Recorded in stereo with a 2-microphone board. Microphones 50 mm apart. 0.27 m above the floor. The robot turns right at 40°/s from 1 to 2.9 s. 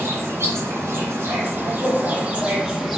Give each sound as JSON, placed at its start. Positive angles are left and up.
{"t": 0.0, "sound": "an insect", "azimuth_deg": -80, "distance_m": 1.4}